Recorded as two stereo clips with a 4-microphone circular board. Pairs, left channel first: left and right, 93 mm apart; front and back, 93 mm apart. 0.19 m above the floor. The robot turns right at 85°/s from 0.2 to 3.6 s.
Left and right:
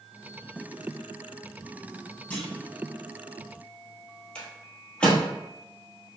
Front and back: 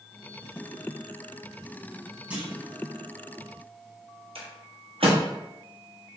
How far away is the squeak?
No squeak in this recording.